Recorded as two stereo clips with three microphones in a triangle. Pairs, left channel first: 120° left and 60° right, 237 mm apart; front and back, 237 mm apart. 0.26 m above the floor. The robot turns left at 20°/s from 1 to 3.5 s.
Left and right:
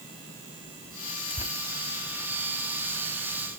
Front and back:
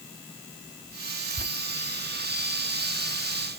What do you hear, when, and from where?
1.3 s tearing paper: 160° left, 0.7 m; by 1.5 s 155° left, 0.7 m